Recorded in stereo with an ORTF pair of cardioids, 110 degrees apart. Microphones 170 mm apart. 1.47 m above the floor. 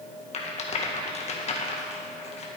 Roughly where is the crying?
No crying in this recording.